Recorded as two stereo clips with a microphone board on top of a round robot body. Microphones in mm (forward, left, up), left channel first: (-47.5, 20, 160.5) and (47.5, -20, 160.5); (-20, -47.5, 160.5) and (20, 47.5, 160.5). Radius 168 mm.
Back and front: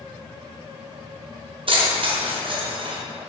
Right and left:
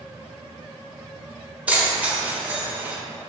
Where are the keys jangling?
5° right, 0.9 m.